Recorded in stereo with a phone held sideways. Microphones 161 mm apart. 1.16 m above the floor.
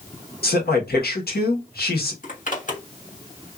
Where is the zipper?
55° left (ahead or behind), 1.5 m.